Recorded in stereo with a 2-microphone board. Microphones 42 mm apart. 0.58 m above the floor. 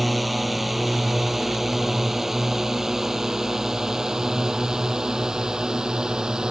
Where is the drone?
5° right (ahead or behind); by 6.5 s 20° right (ahead or behind).